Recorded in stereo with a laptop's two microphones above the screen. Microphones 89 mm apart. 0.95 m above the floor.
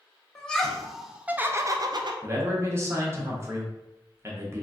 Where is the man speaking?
30° right (ahead or behind), 0.8 m.